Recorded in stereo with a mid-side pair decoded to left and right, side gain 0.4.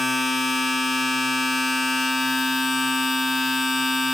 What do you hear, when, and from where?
0.0 s a machine running: 25° left, 3 m